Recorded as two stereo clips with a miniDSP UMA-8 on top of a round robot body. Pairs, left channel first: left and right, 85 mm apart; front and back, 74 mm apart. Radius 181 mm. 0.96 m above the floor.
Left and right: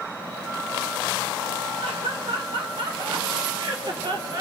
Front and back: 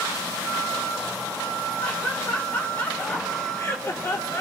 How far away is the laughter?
About 4 m.